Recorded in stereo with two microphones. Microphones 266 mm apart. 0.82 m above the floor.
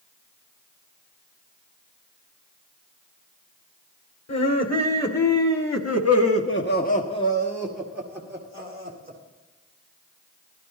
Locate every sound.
4.3 s laughter: 75° left (ahead or behind), 2.5 m; by 9.2 s 25° right (ahead or behind), 2.5 m